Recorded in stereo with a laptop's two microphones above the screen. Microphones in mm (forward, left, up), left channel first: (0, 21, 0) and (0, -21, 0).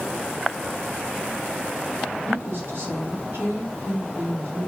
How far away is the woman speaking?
About 1.5 m.